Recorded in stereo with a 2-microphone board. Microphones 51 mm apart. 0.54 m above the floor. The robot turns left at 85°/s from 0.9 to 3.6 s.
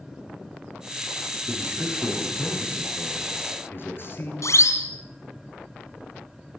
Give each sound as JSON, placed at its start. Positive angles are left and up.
{"t": 1.5, "sound": "a man speaking", "azimuth_deg": -135, "distance_m": 9.5}
{"t": 4.4, "sound": "a siren", "side_deg": 75, "distance_m": 4.0}